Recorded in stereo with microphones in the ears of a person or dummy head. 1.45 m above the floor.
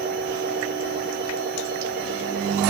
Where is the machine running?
50° right (ahead or behind), 1.2 m.